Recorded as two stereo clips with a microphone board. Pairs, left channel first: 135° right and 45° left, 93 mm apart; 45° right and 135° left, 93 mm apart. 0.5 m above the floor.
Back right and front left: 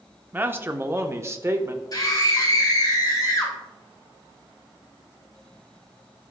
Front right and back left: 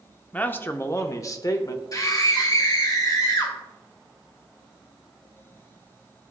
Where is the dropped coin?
No dropped coin in this recording.